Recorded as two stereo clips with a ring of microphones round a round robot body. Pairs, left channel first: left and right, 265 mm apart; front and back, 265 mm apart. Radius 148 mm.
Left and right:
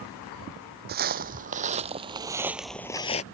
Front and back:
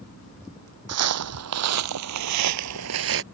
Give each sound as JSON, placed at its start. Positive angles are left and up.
{"t": 0.9, "sound": "footsteps", "azimuth_deg": -150}